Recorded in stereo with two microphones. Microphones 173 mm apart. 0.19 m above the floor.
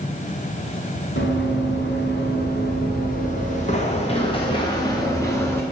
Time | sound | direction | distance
1.2 | running footsteps | 80° left | 2.5 m